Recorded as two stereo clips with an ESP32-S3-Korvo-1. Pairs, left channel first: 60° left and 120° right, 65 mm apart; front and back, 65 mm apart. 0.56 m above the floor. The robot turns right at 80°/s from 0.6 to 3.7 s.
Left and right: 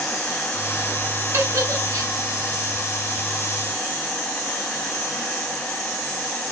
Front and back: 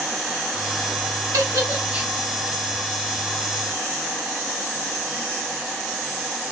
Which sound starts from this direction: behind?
A giggle, at 1.3 s.